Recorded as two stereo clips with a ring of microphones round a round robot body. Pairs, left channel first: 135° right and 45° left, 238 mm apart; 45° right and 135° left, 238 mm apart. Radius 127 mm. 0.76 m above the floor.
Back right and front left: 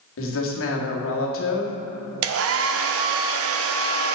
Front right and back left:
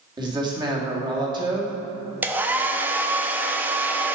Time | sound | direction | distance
0.2 | a woman speaking | 155° right | 2 m
2.2 | a hair dryer | 50° left | 0.7 m